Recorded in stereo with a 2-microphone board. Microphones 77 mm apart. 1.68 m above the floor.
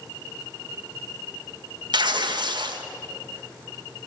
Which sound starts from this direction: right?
Tearing paper, at 1.9 s.